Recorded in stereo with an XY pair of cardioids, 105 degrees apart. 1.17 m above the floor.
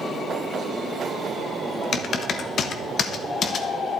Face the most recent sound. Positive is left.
turn(degrees=55)